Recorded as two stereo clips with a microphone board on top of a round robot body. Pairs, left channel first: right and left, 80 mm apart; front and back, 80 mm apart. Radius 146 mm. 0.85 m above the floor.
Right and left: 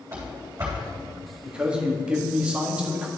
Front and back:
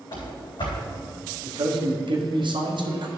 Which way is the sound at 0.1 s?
30° left.